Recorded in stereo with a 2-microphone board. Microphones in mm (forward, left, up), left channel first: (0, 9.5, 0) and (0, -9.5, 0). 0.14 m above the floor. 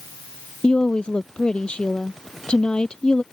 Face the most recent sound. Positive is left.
turn(degrees=65)  # may be behind; listen again after turning